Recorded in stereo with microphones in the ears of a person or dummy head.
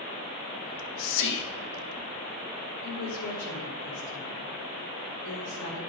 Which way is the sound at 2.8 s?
60° left (ahead or behind).